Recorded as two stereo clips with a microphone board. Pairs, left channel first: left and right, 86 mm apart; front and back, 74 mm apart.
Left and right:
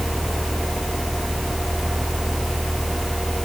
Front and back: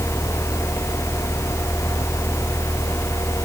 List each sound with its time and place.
Only background noise.